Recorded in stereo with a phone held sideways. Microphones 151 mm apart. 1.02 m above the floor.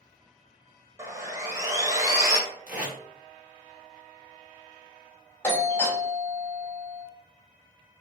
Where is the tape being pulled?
10° right (ahead or behind), 1.3 m.